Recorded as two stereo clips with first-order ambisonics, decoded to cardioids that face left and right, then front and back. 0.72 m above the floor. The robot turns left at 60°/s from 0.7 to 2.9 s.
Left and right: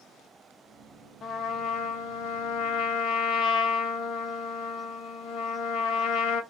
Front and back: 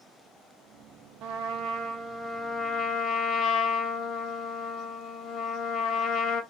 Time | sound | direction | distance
1.2 | a trumpet | 155° left | 0.5 m